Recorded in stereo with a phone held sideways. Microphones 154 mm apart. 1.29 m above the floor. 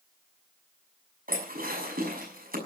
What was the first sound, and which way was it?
Dishes clattering, 70° right (ahead or behind).